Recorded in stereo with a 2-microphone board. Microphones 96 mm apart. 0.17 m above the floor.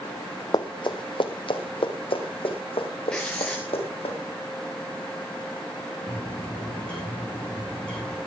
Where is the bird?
15° left (ahead or behind), 7.5 m.